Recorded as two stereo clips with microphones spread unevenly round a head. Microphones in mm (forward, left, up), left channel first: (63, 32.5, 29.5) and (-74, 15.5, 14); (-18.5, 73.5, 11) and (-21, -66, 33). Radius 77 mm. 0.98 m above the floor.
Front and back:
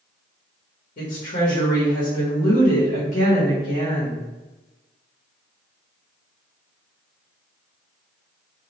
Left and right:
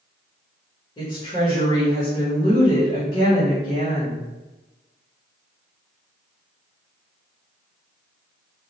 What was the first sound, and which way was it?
A woman speaking, 35° left.